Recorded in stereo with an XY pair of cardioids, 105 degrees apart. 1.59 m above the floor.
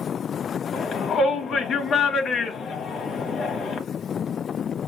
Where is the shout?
55° left, 1.0 m.